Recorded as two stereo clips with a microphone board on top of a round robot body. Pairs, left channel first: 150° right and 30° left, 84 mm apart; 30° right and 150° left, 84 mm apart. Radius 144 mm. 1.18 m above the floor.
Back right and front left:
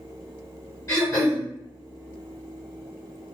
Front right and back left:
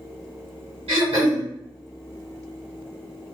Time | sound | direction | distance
0.9 | throat clearing | 150° left | 1.8 m